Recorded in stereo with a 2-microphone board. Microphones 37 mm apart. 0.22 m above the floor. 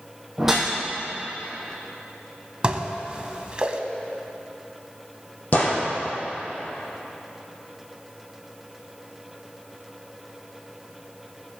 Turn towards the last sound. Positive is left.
turn(degrees=45)  # may be behind; listen again after turning